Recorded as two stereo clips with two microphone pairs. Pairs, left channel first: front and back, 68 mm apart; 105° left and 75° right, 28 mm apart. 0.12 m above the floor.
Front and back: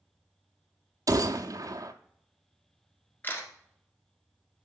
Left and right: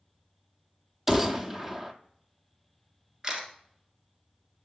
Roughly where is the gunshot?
Behind right.